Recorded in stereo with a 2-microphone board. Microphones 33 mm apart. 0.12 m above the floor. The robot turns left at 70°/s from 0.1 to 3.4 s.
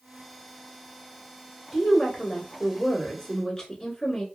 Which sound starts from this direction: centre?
A woman speaking, at 1.7 s.